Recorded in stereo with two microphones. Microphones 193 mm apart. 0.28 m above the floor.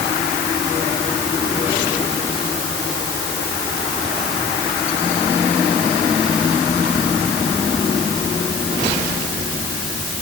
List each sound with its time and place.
Only background noise.